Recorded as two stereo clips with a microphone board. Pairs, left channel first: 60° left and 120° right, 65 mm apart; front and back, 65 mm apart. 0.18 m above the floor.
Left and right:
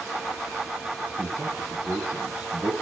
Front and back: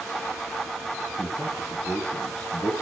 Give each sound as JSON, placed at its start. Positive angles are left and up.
{"t": 1.2, "sound": "a man speaking", "azimuth_deg": -60, "distance_m": 2.0}